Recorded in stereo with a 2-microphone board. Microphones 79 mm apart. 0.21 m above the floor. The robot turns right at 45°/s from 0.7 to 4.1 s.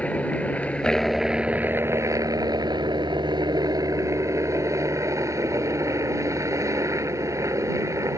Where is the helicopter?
160° left; by 8.2 s 45° right.